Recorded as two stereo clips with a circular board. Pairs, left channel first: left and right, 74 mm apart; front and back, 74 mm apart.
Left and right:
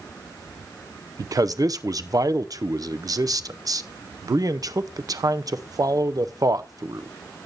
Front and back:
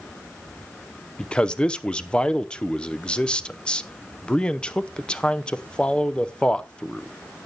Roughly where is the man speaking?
Right.